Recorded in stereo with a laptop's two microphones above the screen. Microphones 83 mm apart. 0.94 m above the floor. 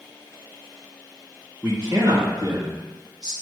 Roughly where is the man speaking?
Right.